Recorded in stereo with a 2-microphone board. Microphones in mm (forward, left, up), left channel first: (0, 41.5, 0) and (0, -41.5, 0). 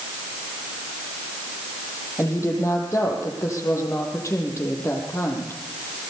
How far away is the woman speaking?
About 8.5 m.